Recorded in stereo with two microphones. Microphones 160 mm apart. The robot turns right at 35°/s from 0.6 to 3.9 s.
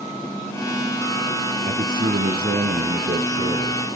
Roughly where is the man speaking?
Behind right.